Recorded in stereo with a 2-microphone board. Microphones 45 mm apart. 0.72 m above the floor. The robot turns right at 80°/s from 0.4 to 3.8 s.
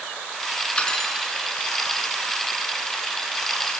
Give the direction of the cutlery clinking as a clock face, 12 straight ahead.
7 o'clock.